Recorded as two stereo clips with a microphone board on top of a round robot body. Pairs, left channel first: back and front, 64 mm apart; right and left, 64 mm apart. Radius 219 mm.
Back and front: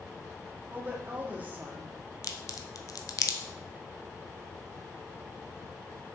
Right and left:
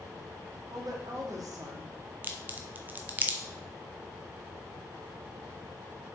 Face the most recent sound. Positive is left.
turn(degrees=155)